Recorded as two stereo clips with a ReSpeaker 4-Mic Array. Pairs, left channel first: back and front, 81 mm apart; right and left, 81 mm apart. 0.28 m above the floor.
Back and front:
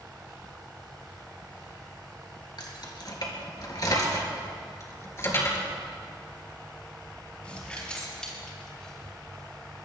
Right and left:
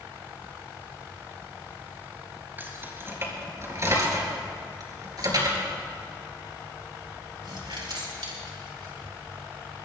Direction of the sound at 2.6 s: 155° left.